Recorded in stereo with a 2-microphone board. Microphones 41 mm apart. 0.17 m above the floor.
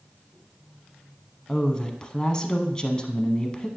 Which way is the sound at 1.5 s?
20° left (ahead or behind).